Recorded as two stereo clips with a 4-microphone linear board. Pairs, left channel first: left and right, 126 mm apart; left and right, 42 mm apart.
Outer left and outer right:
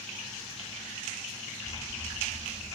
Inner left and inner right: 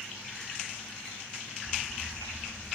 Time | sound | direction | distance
1.6 | an explosion | 35° left (ahead or behind) | 1.4 m